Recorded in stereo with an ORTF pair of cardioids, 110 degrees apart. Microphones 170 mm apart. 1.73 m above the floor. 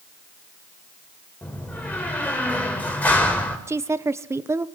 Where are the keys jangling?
No keys jangling in this recording.